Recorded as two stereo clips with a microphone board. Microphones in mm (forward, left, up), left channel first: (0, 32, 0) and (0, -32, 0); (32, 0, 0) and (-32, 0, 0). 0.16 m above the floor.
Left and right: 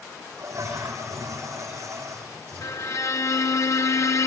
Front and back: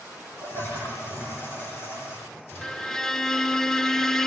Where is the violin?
80° left, 1.0 m.